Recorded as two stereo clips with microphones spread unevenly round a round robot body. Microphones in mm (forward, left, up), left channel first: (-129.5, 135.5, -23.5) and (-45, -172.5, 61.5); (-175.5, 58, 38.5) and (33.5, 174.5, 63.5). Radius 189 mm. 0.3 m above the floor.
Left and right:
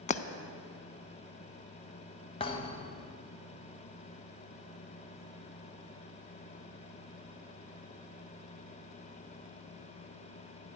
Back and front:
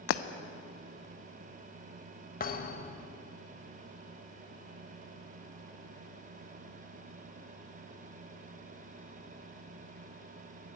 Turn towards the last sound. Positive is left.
turn(degrees=165)